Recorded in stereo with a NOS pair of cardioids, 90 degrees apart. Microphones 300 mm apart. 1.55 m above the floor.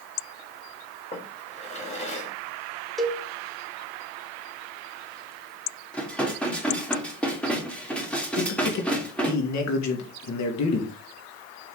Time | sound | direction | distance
1.1 | a drawer | 25° left | 3.5 m
3.0 | a cowbell | straight ahead | 1.8 m
5.9 | dishes clattering | 5° left | 3 m
8.3 | a man speaking | 65° left | 3 m